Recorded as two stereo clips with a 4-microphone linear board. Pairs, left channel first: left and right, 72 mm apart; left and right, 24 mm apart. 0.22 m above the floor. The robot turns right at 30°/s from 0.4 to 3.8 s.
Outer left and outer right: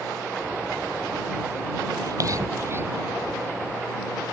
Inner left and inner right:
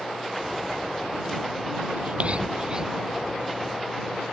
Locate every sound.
2.0 s whispering: 55° right (ahead or behind); by 3.0 s 30° right (ahead or behind)